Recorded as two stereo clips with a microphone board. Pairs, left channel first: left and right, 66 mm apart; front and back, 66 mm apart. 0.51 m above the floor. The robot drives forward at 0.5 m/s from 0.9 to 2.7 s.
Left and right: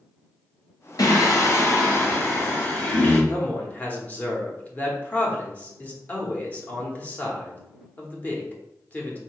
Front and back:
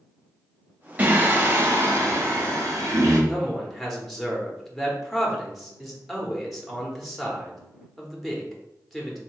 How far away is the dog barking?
I don't hear a dog barking.